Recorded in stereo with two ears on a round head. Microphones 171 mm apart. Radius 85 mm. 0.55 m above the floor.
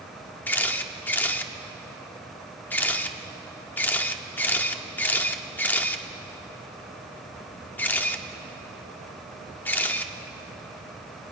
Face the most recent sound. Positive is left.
turn(degrees=10)  # may be behind; listen again after turning